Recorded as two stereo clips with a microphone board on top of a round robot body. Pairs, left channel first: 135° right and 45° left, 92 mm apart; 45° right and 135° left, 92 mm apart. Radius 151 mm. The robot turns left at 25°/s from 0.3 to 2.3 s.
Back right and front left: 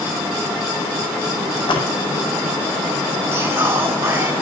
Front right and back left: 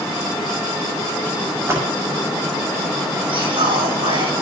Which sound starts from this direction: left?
Whispering, at 3.3 s.